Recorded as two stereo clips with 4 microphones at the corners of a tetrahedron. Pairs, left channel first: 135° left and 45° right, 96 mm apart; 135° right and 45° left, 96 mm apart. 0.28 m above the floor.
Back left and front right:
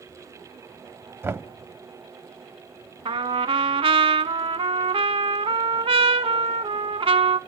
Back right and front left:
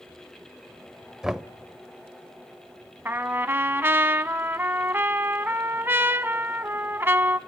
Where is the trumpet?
25° right, 0.6 m.